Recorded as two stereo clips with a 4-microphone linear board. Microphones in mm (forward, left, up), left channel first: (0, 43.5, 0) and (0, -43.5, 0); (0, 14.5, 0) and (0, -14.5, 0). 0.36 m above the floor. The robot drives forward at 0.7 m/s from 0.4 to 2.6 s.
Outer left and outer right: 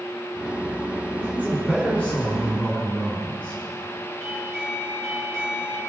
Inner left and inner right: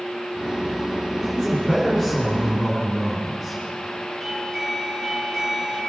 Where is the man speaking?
15° left (ahead or behind), 3.5 m.